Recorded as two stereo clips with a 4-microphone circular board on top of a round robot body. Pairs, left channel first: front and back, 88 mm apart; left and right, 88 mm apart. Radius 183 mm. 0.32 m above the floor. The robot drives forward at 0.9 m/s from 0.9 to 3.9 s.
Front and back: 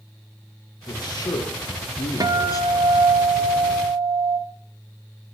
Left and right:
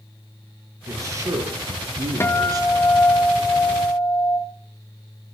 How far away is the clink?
I don't hear a clink.